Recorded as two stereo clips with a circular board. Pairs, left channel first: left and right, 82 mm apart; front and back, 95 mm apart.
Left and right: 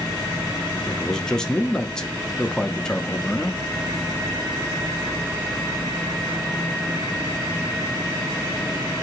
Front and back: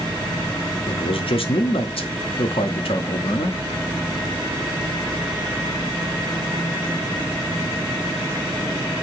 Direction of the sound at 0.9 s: 10° left.